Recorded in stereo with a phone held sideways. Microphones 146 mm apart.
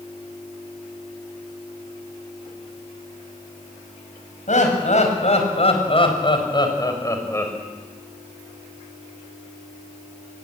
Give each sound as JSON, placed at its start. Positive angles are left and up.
{"t": 4.5, "sound": "laughter", "side_deg": 60, "distance_m": 5.5}